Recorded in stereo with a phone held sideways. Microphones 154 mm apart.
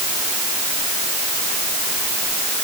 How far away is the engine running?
No engine running in this recording.